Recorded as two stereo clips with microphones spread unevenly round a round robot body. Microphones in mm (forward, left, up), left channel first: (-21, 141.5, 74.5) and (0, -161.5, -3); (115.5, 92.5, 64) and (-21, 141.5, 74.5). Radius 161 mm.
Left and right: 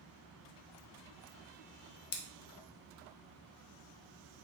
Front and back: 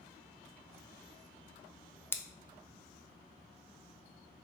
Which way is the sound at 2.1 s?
50° left.